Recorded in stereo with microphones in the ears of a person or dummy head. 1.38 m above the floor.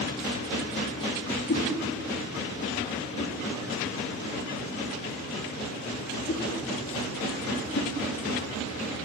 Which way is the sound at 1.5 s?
50° left (ahead or behind).